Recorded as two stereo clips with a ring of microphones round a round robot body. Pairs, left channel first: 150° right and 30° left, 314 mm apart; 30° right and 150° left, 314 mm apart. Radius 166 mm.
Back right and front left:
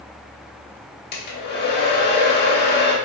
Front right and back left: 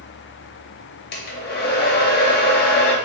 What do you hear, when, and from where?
1.1 s a hair dryer: 90° right, 0.8 m